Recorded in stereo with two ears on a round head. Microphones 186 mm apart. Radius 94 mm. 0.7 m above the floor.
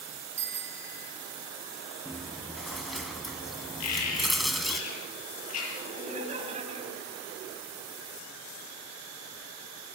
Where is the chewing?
Centre (ahead or behind), 1.8 m.